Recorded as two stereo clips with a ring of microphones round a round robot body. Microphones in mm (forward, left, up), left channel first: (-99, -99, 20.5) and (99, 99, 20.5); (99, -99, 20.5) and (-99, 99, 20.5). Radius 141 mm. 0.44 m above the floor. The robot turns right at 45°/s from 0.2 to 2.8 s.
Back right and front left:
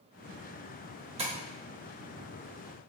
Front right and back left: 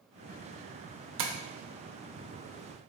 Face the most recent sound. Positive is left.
turn(degrees=-175)